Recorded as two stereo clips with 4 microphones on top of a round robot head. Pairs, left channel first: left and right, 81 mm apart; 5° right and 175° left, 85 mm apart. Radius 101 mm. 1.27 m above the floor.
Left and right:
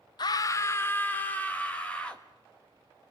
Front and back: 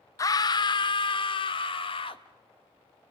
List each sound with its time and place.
0.2 s a scream: 45° left, 0.5 m; by 2.2 s 10° left, 1.7 m